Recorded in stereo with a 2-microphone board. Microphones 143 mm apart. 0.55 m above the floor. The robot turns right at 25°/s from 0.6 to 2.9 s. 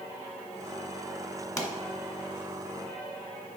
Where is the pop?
25° left (ahead or behind), 1.1 m; by 1.7 s 30° left (ahead or behind), 1.1 m.